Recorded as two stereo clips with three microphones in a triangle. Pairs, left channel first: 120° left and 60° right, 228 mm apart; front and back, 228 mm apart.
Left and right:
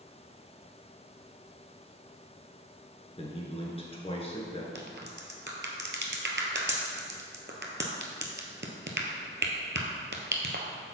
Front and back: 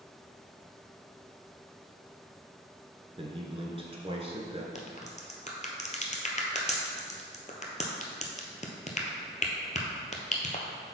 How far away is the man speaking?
About 1.2 m.